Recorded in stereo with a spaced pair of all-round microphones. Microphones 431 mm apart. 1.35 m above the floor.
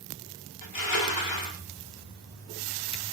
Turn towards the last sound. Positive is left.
turn(degrees=50)  # may be behind; listen again after turning